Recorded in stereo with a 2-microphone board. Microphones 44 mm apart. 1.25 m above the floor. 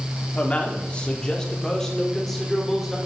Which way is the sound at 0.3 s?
30° left (ahead or behind).